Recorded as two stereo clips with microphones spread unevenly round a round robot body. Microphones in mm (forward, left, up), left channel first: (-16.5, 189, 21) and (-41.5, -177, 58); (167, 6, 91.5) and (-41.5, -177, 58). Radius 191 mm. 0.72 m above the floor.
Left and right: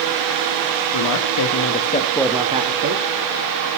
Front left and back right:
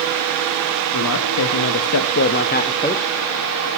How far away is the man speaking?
About 1.4 m.